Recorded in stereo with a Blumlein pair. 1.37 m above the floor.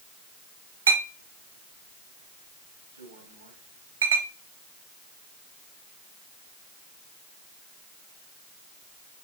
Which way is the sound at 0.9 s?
70° right.